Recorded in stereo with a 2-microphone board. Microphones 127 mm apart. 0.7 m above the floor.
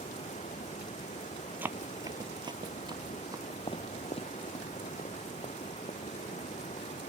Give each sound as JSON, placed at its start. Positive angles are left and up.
{"t": 0.0, "sound": "running water", "side_deg": 70}
{"t": 1.6, "sound": "running footsteps", "side_deg": -15}
{"t": 3.7, "sound": "footsteps", "side_deg": 45}